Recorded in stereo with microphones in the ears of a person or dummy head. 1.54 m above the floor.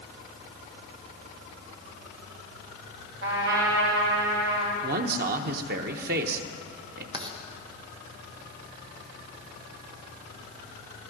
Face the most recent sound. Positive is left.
turn(degrees=-25)  # may be behind; listen again after turning